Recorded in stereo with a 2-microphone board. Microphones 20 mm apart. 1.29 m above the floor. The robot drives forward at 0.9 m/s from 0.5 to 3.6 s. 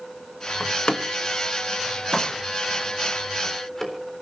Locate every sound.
0.6 s a door slam: 60° left (ahead or behind), 1.2 m; by 4.2 s 20° left (ahead or behind), 3.5 m